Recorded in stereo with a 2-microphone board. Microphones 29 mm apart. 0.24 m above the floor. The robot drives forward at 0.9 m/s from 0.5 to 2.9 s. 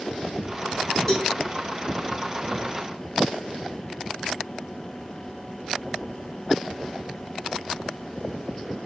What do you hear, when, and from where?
1.1 s a cowbell: 20° left (ahead or behind), 4.5 m; by 1.3 s 25° left (ahead or behind), 4 m